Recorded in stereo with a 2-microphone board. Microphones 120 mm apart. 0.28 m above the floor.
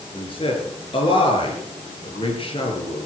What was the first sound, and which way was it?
A man speaking, 45° left (ahead or behind).